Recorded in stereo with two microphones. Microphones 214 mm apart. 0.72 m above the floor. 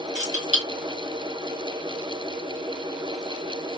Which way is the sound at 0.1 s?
35° right (ahead or behind).